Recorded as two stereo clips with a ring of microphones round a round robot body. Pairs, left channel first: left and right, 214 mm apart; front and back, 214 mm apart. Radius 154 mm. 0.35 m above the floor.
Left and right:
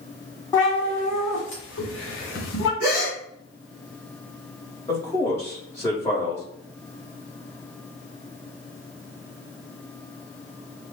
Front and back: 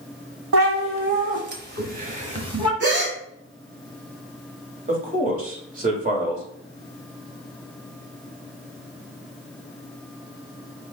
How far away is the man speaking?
About 1.4 m.